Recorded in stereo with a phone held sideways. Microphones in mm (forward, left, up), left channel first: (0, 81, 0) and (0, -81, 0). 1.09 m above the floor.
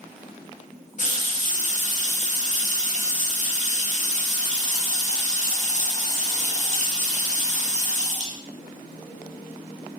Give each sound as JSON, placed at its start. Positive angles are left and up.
{"t": 1.0, "sound": "a running tap", "side_deg": 50, "distance_m": 0.7}